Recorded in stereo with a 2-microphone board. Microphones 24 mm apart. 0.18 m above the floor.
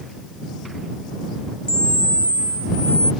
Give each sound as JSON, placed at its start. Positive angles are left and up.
{"t": 1.7, "sound": "a camera shutter", "side_deg": 45}